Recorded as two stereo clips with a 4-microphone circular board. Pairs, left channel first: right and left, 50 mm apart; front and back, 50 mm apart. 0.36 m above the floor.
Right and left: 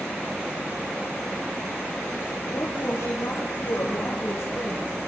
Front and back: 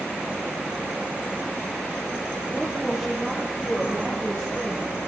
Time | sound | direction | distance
2.5 | a woman speaking | 95° right | 8 m